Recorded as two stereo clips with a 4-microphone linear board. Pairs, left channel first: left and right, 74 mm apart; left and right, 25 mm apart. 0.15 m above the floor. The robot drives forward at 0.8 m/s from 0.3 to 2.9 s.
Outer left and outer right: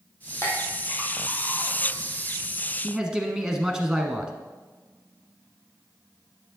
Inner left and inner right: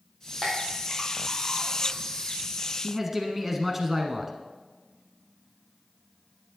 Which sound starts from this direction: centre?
A man speaking, at 2.8 s.